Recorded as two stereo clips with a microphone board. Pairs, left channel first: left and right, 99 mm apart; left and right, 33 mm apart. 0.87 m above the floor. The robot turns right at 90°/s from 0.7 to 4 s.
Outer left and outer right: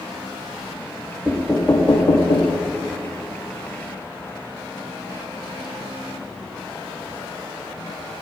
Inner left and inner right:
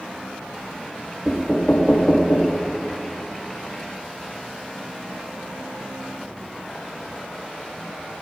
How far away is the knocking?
About 0.9 m.